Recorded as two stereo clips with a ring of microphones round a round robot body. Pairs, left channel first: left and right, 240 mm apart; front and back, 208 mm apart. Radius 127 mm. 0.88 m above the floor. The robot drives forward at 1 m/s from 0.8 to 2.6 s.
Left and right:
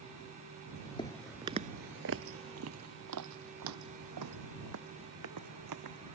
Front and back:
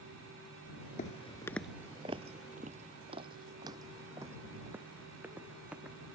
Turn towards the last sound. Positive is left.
turn(degrees=-95)